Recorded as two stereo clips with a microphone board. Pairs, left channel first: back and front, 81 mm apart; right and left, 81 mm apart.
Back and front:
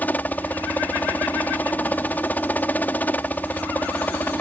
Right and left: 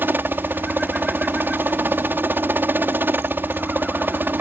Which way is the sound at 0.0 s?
130° left.